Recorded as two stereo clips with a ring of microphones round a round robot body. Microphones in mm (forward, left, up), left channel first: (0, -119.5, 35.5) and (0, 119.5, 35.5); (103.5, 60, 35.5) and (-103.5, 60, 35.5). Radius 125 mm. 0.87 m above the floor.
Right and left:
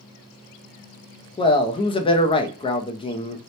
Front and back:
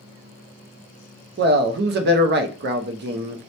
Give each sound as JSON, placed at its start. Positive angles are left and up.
{"t": 1.4, "sound": "a man speaking", "azimuth_deg": -155, "distance_m": 0.5}